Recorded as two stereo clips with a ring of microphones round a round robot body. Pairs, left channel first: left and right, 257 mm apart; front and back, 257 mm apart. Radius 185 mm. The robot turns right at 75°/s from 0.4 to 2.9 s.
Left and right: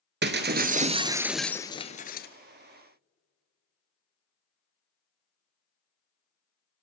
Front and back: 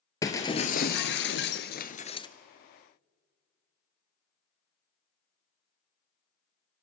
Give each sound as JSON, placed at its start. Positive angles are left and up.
{"t": 0.2, "sound": "breaking glass", "azimuth_deg": -75, "distance_m": 1.1}